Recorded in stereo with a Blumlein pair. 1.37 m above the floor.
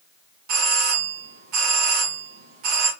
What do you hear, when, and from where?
0.5 s a doorbell: 45° right, 1.0 m